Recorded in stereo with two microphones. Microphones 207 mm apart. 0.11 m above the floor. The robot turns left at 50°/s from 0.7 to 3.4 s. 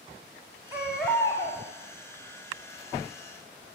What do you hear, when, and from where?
0.7 s a baby crying: 165° right, 3.5 m; by 1.6 s 150° left, 3.5 m